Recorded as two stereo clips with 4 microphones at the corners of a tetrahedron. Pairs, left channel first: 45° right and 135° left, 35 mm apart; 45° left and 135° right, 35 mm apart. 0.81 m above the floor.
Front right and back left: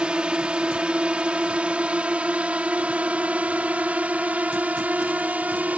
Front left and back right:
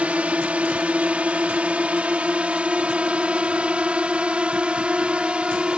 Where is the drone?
170° right; by 5.8 s 170° left.